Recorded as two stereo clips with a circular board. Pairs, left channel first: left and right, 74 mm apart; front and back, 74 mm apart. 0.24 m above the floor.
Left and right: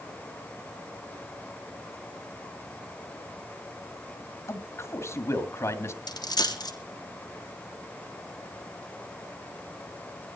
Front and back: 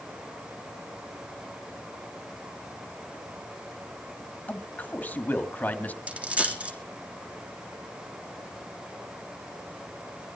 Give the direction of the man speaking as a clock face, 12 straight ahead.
10 o'clock.